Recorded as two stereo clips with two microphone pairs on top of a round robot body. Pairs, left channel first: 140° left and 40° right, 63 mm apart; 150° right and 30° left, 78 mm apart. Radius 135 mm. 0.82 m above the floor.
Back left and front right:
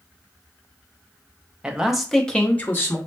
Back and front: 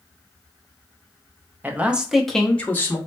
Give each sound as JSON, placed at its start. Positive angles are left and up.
{"t": 1.6, "sound": "a man speaking", "azimuth_deg": 5, "distance_m": 0.8}